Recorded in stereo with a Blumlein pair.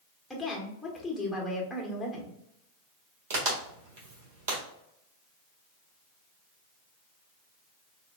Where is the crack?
45° right, 1.6 m.